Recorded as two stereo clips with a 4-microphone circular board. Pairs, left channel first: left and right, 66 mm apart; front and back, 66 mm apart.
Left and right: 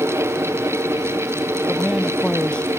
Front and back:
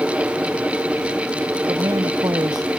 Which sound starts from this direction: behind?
A man speaking, at 1.7 s.